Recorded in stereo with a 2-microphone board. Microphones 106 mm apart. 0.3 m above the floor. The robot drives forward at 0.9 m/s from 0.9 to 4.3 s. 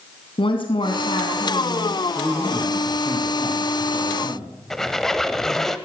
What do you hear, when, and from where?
0.4 s a woman speaking: 60° left (ahead or behind), 3 m; by 2.0 s 65° left (ahead or behind), 2.5 m
2.1 s a man speaking: 10° left (ahead or behind), 5.5 m; by 4.5 s 5° left (ahead or behind), 7 m
4.7 s a squeak: 5° left (ahead or behind), 1.2 m